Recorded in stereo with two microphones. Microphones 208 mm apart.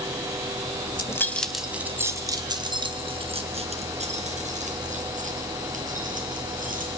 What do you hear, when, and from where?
0.9 s keys jangling: 20° left (ahead or behind), 1.1 m; by 6.9 s 40° right (ahead or behind), 5.5 m